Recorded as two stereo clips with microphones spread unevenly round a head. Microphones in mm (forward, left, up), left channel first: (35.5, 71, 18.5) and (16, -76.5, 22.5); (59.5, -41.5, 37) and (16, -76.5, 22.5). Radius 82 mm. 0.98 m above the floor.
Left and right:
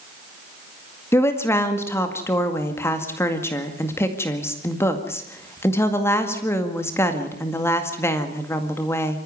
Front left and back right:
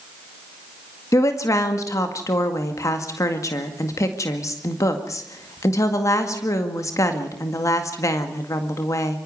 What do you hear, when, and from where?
1.1 s a woman speaking: 10° left, 2 m